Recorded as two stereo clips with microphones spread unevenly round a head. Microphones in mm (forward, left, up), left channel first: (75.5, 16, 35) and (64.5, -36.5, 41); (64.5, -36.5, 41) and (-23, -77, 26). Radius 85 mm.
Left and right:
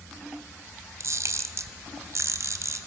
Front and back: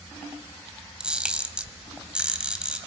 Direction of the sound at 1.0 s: 70° right.